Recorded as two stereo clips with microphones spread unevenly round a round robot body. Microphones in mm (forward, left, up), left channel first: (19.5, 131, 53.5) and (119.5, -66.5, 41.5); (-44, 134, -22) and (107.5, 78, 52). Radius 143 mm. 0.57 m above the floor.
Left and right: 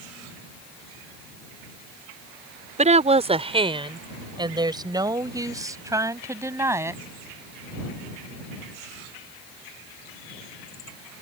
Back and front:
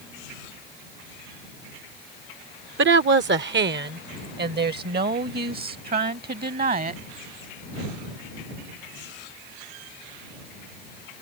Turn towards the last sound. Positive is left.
turn(degrees=15)